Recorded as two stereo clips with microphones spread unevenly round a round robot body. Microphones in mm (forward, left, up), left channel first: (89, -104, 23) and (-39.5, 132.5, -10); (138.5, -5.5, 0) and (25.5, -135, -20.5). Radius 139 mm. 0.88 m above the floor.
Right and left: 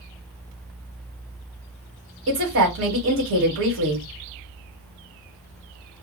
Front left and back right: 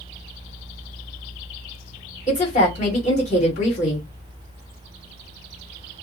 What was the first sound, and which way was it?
A woman speaking, 105° left.